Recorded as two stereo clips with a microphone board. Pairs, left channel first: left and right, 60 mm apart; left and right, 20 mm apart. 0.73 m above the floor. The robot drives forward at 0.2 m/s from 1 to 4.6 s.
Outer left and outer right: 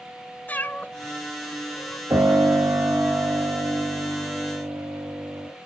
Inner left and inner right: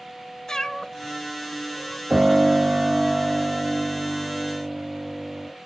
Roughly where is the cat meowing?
Left.